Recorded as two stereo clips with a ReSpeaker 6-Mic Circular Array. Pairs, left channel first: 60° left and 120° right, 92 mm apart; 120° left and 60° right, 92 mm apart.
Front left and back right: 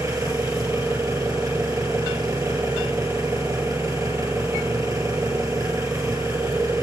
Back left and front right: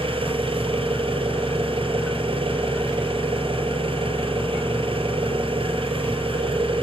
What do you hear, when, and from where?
0.0 s an engine running: 70° right, 6.5 m